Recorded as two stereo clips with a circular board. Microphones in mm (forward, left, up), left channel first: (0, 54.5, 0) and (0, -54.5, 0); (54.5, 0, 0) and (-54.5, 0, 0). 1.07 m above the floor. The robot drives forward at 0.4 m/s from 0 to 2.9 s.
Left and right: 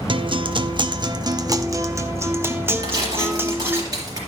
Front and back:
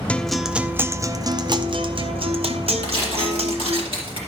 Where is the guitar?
75° right, 0.5 m; by 3.8 s 160° right, 1.2 m.